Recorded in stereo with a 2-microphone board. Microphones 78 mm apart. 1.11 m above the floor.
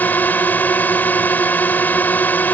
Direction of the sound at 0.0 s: 20° left (ahead or behind).